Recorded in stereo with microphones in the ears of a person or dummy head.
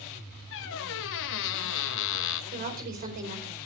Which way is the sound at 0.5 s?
70° left (ahead or behind).